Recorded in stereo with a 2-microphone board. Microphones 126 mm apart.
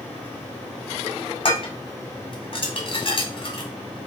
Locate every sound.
1.4 s dishes clattering: 50° left (ahead or behind), 1.2 m